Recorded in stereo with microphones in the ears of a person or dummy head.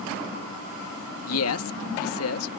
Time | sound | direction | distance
1.3 | a man speaking | 70° left (ahead or behind) | ?